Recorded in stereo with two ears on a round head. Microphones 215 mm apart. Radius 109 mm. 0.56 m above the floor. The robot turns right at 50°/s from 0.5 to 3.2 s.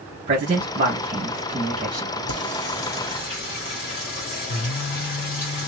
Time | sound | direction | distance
0.3 | a man speaking | 35° right (ahead or behind) | 1.2 m
2.3 | singing | 85° left | 1.8 m